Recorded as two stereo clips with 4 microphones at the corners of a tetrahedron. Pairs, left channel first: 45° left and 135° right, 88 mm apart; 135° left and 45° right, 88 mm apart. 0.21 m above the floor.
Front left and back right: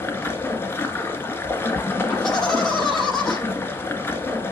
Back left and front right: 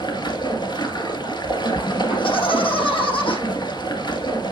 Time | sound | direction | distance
0.0 | running water | 105° left | 1.5 m
2.1 | laughter | 125° left | 6 m